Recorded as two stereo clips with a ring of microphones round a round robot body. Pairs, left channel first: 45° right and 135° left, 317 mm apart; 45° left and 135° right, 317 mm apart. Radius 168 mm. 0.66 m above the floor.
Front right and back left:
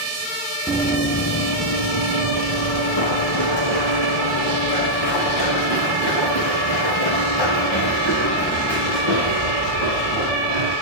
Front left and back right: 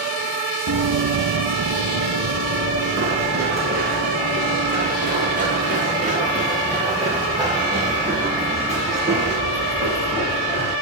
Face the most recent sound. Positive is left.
turn(degrees=-65)